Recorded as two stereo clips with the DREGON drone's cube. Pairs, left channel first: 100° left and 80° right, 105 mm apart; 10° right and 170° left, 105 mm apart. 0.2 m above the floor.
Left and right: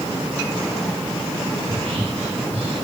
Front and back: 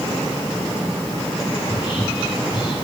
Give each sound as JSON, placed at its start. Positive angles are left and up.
{"t": 1.6, "sound": "whispering", "azimuth_deg": -55, "distance_m": 3.5}